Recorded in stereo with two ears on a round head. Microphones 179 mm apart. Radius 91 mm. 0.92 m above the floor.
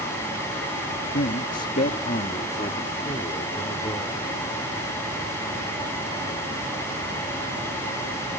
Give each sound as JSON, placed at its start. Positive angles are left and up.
{"t": 1.1, "sound": "a man speaking", "side_deg": 50}